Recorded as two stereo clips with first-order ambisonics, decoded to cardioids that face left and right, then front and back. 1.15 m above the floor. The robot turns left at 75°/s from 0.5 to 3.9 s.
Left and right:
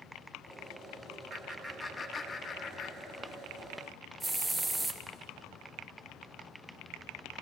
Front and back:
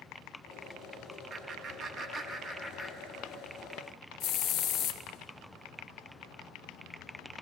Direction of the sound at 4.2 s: Straight ahead.